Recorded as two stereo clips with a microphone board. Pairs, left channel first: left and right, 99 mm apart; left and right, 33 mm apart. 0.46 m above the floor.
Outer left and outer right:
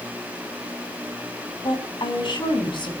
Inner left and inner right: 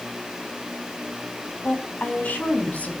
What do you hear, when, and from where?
1.6 s a woman speaking: 55° left (ahead or behind), 4 m